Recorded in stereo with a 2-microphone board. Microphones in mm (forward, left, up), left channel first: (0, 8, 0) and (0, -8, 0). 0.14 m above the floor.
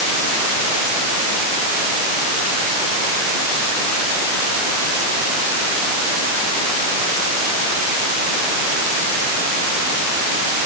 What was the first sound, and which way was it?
Only background noise.